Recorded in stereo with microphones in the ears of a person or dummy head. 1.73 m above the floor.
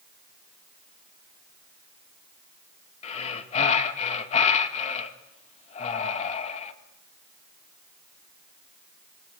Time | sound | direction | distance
3.0 | breathing | 40° left (ahead or behind) | 2.5 m